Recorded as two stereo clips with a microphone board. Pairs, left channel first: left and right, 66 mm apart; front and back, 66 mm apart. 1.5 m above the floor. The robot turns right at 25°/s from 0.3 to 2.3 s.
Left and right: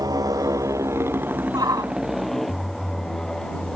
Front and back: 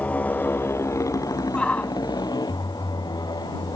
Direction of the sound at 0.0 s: 65° right.